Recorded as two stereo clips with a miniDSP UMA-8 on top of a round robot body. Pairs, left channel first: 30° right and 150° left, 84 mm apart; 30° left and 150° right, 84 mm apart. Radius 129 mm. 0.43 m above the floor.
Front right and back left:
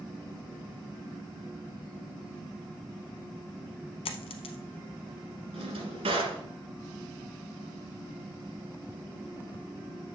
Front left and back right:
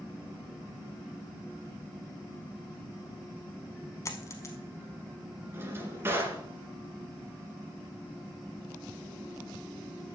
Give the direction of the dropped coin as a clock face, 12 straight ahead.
1 o'clock.